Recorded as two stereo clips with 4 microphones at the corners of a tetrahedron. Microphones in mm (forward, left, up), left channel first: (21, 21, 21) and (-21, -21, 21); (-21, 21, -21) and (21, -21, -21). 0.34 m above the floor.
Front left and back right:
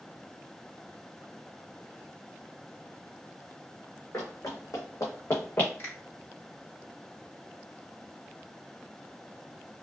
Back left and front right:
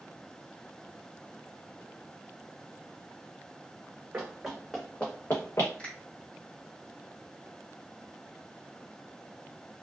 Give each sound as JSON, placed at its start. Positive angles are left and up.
{"t": 4.1, "sound": "running footsteps", "azimuth_deg": 25, "distance_m": 1.1}
{"t": 5.8, "sound": "a finger snap", "azimuth_deg": 70, "distance_m": 1.9}